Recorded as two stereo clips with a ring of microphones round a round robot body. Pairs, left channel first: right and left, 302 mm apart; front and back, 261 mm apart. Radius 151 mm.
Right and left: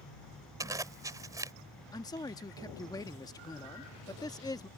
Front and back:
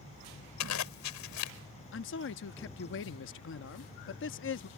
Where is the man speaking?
15° right.